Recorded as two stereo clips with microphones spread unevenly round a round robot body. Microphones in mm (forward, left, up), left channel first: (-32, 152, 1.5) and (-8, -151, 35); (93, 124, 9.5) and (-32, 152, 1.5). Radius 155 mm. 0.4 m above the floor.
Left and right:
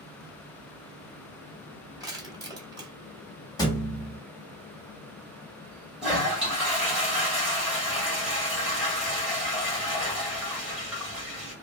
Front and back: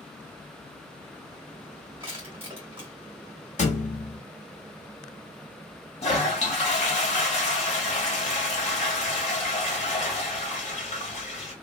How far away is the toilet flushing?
About 1.5 m.